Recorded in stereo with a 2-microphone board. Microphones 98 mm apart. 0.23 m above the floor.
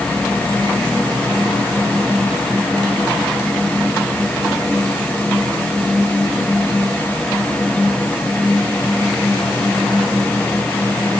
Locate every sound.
Only background noise.